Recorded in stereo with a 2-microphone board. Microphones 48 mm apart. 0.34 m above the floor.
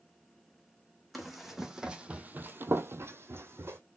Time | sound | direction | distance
1.1 | running footsteps | centre (ahead or behind) | 1.0 m